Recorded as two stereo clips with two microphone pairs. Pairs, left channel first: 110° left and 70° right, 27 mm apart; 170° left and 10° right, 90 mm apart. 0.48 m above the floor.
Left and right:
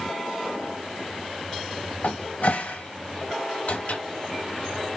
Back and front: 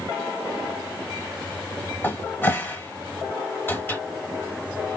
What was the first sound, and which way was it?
A cupboard door, 100° left.